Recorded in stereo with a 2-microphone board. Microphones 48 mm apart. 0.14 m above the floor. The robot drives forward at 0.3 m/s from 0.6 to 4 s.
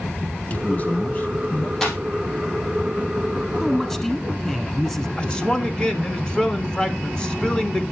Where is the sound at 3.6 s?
10° left (ahead or behind), 1.4 m.